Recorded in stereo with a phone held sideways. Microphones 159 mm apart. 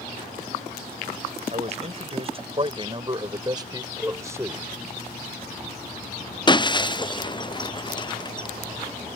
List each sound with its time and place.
1.5 s a man speaking: 45° right (ahead or behind); by 4.7 s 15° right (ahead or behind)
4.0 s a cowbell: 10° right (ahead or behind)
6.5 s breaking glass: 30° left (ahead or behind)